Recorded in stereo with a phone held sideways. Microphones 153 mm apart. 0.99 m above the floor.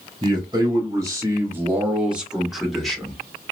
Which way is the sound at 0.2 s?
25° right (ahead or behind).